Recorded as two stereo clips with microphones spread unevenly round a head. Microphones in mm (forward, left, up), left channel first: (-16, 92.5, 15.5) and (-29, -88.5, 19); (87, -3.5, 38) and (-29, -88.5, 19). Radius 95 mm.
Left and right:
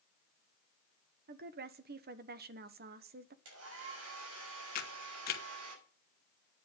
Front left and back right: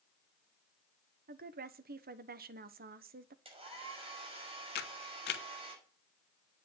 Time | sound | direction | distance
1.3 | a woman speaking | 130° right | 1.1 m
3.5 | a hair dryer | 90° right | 6 m
4.8 | a camera shutter | 40° left | 1.1 m